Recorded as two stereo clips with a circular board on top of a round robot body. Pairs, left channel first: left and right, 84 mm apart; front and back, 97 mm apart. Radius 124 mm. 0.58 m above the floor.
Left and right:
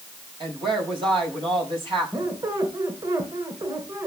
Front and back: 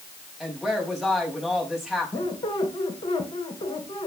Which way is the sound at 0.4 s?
90° right.